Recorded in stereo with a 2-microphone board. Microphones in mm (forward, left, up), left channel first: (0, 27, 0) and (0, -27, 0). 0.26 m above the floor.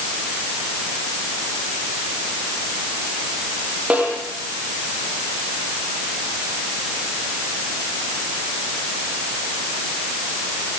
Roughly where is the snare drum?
Right.